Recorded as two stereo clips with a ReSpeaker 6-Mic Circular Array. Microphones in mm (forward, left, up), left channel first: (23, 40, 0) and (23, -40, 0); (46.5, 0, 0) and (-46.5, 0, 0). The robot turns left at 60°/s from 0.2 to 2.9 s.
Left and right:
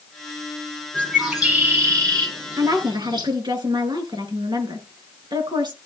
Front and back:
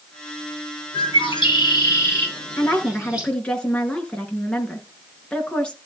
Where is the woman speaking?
55° right, 3.5 m; by 5.9 s 75° right, 3.5 m.